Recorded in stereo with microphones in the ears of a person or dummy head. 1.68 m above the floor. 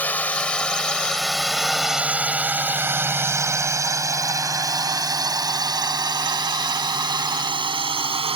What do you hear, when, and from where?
0.0 s a drone: 5° left (ahead or behind); by 8.4 s 25° right (ahead or behind)